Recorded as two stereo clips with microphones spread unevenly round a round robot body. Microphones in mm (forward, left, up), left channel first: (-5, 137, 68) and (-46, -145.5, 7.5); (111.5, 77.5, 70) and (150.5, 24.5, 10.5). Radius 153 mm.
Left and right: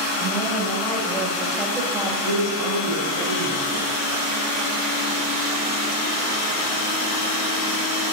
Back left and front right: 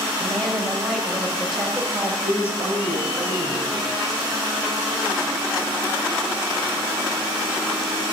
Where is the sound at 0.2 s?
20° left, 2 m; by 2.1 s 20° right, 2 m.